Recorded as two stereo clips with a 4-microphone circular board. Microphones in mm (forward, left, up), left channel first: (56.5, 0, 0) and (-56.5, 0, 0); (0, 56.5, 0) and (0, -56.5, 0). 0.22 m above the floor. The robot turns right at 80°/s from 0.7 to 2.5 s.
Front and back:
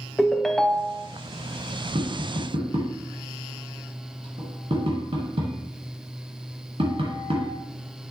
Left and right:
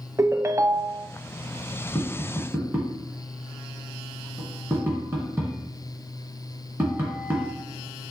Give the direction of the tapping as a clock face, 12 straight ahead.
7 o'clock.